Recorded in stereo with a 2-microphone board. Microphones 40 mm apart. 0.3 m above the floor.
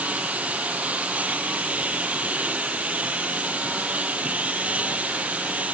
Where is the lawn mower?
35° right (ahead or behind).